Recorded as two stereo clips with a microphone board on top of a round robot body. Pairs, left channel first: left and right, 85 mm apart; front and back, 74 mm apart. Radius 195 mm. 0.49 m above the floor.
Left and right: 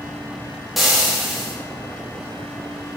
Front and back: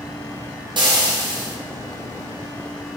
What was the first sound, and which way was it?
Frying, straight behind.